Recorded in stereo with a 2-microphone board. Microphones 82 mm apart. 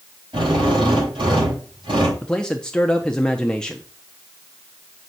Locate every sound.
0.3 s a drill: 85° right, 7.5 m
2.2 s a man speaking: 10° left (ahead or behind), 0.7 m